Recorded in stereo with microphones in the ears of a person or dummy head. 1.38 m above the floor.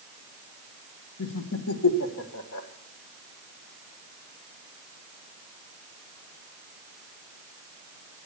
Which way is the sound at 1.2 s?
75° left (ahead or behind).